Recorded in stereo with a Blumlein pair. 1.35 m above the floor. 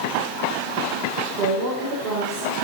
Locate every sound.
1.4 s a woman speaking: 30° right, 5 m